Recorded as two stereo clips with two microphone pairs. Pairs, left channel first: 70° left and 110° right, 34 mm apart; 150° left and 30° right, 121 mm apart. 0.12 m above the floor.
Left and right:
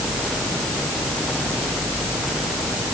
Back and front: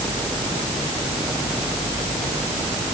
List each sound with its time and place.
Only background noise.